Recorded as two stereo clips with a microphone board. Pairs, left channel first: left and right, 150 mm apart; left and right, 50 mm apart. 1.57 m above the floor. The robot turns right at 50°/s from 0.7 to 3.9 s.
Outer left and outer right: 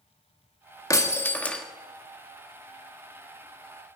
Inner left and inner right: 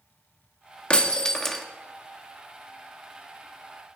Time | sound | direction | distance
0.9 | breaking glass | 135° left | 1.1 m